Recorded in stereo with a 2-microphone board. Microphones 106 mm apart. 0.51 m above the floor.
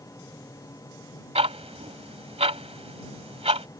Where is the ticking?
75° right (ahead or behind).